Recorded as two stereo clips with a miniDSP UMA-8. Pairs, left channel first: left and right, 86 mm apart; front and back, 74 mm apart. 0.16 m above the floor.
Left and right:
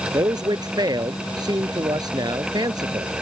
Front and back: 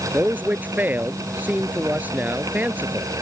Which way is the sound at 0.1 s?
115° right.